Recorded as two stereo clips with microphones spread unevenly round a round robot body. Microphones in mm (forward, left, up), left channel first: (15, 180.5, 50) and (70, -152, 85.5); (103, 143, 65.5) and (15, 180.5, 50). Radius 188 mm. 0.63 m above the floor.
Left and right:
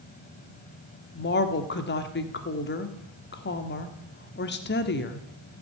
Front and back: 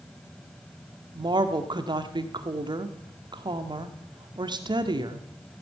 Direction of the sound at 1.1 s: 150° left.